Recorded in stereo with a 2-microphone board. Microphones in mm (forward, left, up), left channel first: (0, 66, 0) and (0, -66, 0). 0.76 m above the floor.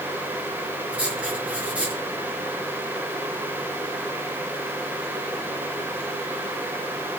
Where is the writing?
10° right (ahead or behind), 4.5 m.